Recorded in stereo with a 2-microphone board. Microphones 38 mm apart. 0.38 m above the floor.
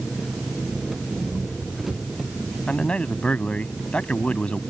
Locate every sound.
0.0 s an engine running: 5° right (ahead or behind)
2.7 s a man speaking: 30° left (ahead or behind)